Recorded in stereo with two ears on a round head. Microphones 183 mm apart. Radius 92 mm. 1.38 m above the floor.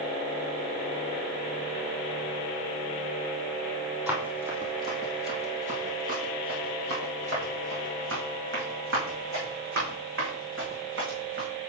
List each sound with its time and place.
4.1 s running footsteps: 5° right (ahead or behind), 2.5 m; by 11.5 s 70° right (ahead or behind), 5.5 m